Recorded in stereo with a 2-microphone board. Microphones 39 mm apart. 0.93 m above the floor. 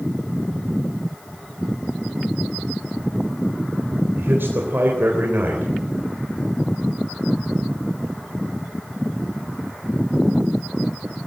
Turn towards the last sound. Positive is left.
turn(degrees=-60)  # may be behind; listen again after turning